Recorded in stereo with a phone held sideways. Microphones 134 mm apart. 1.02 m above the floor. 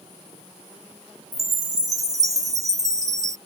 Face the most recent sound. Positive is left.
turn(degrees=-25)  # may be behind; listen again after turning